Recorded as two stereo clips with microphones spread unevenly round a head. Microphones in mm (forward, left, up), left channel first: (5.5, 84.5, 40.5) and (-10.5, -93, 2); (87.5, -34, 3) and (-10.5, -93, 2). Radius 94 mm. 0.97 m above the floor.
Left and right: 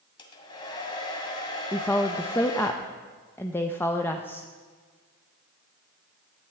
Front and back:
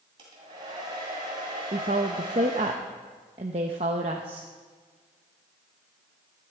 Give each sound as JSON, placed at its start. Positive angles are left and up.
{"t": 0.2, "sound": "a hair dryer", "azimuth_deg": 145, "distance_m": 2.0}
{"t": 1.7, "sound": "a woman speaking", "azimuth_deg": 170, "distance_m": 0.8}